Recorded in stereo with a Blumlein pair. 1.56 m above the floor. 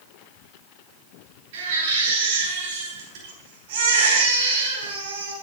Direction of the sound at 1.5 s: 55° right.